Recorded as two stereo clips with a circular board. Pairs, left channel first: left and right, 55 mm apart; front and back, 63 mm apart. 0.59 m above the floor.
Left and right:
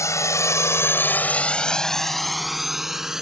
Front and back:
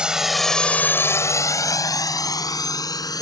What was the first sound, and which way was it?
A drone, 105° left.